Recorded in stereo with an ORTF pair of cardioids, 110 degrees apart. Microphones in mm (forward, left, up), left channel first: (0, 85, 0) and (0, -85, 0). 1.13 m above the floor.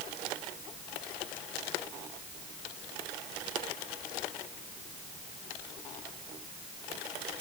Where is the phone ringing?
I don't hear a phone ringing.